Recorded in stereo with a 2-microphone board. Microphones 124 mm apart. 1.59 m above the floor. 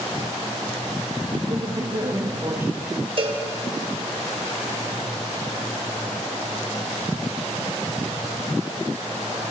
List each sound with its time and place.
1.5 s a man speaking: 45° right (ahead or behind), 2.5 m; by 3.1 s 30° right (ahead or behind), 3 m
3.2 s a cowbell: 50° right (ahead or behind), 3.5 m